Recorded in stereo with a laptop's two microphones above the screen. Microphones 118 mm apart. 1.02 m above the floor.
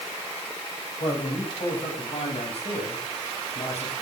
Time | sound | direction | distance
1.0 | a man speaking | 50° left (ahead or behind) | 8 m